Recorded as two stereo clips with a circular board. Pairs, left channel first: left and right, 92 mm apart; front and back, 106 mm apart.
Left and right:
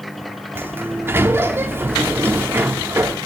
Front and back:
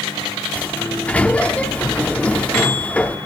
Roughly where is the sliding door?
Ahead right.